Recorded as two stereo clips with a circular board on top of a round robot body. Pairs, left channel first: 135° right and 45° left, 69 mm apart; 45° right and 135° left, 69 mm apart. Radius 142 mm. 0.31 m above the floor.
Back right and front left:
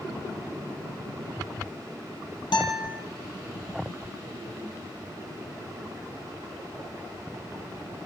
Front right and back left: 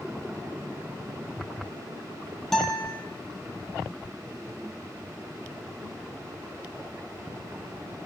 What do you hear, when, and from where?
2.5 s a guitar: 130° right, 3 m